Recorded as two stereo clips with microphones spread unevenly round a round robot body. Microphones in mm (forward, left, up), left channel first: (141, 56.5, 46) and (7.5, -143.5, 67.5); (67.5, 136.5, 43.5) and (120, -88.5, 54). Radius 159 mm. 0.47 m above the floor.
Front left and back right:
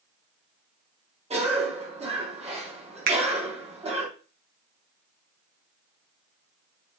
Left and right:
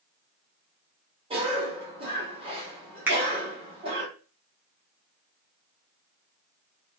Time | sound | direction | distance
1.3 | a cough | 95° right | 1.1 m
3.1 | a finger snap | 160° right | 0.6 m